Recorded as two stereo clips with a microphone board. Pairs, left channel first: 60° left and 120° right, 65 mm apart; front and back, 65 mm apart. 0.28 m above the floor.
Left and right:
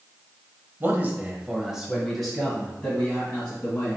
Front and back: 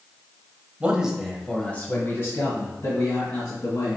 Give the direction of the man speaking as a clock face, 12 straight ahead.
4 o'clock.